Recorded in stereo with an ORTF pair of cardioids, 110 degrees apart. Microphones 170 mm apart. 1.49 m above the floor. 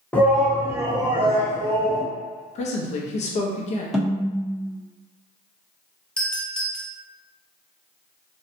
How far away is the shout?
About 0.8 m.